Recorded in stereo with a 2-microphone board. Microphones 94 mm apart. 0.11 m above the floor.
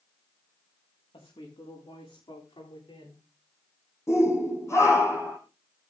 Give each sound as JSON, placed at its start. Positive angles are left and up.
{"t": 1.1, "sound": "a woman speaking", "side_deg": 75, "distance_m": 10.0}
{"t": 4.1, "sound": "a shout", "side_deg": 30, "distance_m": 5.5}